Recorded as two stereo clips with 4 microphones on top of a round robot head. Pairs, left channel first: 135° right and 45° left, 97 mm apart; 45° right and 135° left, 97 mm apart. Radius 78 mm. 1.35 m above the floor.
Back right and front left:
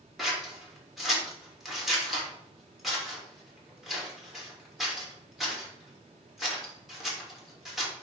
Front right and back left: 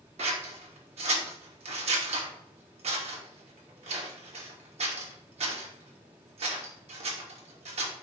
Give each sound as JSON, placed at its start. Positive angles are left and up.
{"t": 0.2, "sound": "scissors", "azimuth_deg": 130, "distance_m": 2.5}